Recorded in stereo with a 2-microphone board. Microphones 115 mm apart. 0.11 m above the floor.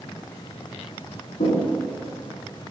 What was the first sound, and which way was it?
Footsteps, 85° left.